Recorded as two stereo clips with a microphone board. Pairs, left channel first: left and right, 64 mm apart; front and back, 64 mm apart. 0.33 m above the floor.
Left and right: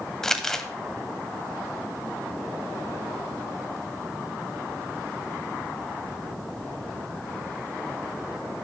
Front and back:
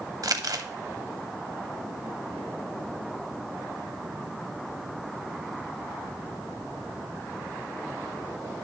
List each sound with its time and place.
0.2 s crumpling: 170° left, 0.7 m